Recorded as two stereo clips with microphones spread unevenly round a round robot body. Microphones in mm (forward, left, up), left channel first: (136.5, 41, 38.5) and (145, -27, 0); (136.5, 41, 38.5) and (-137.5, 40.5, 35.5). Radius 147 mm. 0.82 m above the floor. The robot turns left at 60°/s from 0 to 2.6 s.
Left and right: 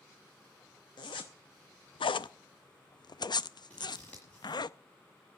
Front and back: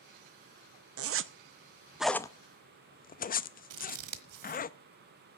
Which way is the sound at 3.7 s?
165° left.